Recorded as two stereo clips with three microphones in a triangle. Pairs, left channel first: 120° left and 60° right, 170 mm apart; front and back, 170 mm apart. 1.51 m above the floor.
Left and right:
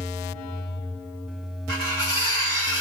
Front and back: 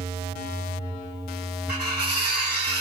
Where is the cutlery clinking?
175° right, 1.8 m.